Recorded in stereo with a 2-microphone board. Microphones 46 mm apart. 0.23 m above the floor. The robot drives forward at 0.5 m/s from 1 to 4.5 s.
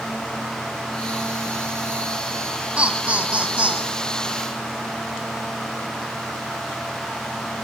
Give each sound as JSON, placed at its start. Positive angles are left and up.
{"t": 2.8, "sound": "laughter", "side_deg": -25, "distance_m": 1.8}